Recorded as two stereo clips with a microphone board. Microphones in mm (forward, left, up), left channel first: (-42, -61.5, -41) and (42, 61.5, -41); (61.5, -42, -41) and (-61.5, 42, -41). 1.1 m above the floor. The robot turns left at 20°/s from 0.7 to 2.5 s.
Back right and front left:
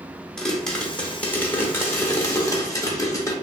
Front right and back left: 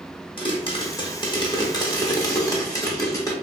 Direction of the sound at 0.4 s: 45° right.